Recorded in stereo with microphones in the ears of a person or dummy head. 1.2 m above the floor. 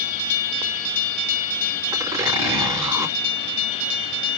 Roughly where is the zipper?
Centre.